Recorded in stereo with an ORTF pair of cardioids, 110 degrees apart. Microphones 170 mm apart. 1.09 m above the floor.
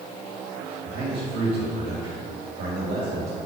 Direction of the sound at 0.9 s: 70° right.